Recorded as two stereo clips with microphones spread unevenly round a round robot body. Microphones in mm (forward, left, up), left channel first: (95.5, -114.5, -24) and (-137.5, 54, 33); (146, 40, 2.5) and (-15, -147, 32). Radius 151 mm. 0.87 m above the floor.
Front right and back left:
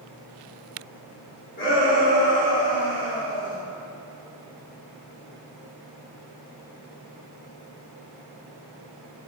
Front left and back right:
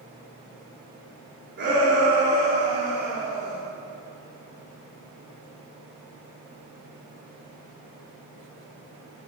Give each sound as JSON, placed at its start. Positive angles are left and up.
{"t": 1.6, "sound": "a shout", "azimuth_deg": -90, "distance_m": 2.5}